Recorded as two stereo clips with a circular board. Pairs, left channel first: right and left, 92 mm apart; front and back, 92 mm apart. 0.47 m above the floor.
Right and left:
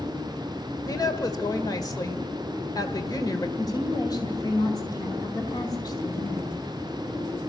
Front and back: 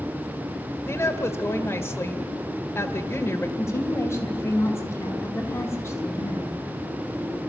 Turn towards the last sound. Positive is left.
turn(degrees=-60)